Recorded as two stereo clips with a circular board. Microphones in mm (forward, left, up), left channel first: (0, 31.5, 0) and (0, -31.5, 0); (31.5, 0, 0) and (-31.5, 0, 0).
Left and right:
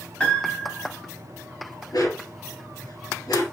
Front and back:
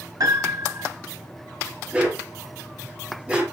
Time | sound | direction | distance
0.2 | a piano | 160° left | 3.5 m
1.9 | a dog barking | 110° left | 3.5 m